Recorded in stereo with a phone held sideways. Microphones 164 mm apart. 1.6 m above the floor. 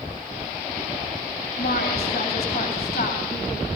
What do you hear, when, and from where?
1.6 s a woman speaking: 80° left, 7.5 m; by 3.7 s 85° left, 8 m